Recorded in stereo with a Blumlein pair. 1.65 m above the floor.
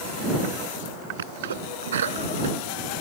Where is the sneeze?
65° right.